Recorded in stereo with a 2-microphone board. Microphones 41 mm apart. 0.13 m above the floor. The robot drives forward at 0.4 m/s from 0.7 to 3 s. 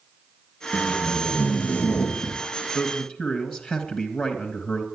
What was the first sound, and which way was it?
Tape being pulled, 50° left (ahead or behind).